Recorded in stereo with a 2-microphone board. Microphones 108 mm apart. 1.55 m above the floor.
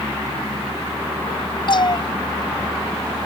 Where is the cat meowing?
45° left (ahead or behind); by 3.3 s 30° left (ahead or behind).